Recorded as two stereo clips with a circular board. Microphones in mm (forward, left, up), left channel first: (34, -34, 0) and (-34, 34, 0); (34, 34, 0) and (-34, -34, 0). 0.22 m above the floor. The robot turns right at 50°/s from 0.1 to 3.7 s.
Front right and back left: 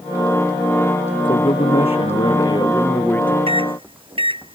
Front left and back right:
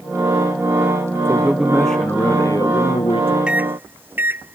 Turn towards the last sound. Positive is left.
turn(degrees=155)